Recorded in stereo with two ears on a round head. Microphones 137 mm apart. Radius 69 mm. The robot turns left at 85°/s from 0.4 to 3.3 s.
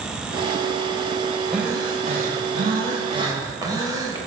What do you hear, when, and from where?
1.5 s breathing: straight ahead, 2 m; by 4.2 s 155° right, 2 m